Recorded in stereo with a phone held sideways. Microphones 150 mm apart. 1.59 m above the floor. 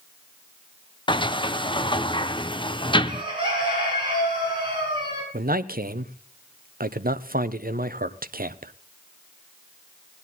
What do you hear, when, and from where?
1.1 s a sliding door: 35° left (ahead or behind), 0.5 m
3.0 s a bird: 30° right (ahead or behind), 5.5 m
5.3 s a man speaking: 75° right (ahead or behind), 0.8 m